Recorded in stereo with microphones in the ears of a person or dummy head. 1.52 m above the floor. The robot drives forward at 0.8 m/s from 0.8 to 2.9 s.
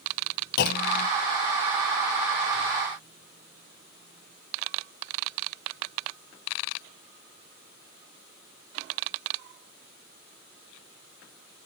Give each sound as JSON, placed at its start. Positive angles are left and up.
{"t": 0.6, "sound": "a clunk", "side_deg": 55, "distance_m": 1.0}